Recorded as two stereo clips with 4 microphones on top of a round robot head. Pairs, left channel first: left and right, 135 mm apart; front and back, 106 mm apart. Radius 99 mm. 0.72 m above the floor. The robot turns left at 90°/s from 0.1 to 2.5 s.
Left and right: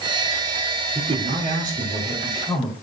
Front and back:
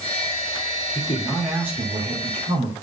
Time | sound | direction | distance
0.9 | a man speaking | 40° right | 2.5 m